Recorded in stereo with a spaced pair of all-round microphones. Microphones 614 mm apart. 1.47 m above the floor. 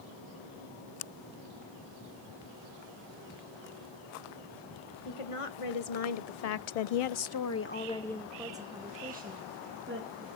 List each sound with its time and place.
5.0 s a woman speaking: 55° left (ahead or behind), 1.3 m; by 10.3 s 20° right (ahead or behind), 1.9 m